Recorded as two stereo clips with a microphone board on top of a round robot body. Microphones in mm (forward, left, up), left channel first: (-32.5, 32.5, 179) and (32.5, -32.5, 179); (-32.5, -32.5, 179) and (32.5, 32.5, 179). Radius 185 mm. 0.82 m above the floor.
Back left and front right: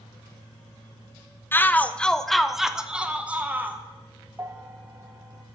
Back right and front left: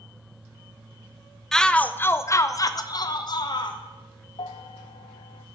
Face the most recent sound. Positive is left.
turn(degrees=-110)